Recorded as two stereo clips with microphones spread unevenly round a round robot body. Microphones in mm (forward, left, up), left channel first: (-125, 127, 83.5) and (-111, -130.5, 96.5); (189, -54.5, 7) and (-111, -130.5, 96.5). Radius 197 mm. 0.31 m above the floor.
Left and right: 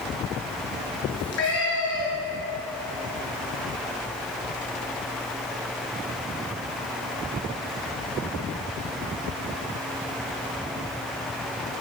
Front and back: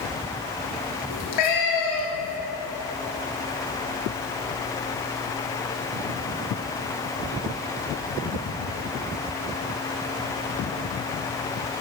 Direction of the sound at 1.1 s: 40° left.